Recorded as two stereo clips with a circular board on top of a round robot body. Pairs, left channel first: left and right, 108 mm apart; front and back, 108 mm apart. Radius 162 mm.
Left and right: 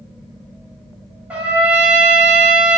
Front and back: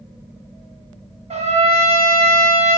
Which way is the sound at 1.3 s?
170° right.